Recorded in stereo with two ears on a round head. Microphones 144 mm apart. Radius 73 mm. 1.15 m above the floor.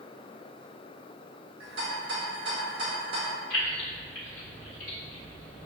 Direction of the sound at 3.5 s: 55° left (ahead or behind).